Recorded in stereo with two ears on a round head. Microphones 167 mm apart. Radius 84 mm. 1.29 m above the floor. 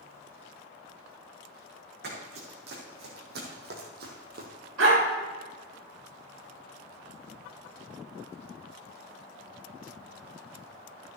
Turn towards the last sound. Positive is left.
turn(degrees=-80)